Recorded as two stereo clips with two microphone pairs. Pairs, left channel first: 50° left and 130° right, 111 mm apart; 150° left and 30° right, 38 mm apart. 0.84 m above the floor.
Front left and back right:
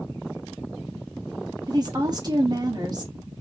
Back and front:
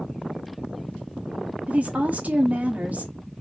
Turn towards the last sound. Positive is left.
turn(degrees=-80)